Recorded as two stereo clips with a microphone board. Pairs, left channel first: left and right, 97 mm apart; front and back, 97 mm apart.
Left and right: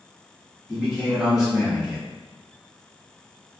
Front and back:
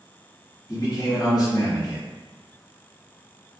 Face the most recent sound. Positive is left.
turn(degrees=-10)